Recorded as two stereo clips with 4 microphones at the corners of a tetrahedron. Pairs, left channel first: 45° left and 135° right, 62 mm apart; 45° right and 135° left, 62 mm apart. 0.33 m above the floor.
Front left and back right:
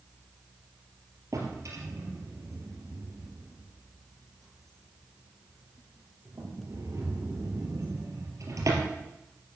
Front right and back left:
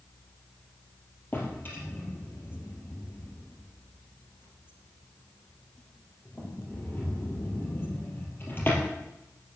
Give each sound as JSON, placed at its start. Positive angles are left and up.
{"t": 1.3, "sound": "a drawer", "azimuth_deg": -100, "distance_m": 3.5}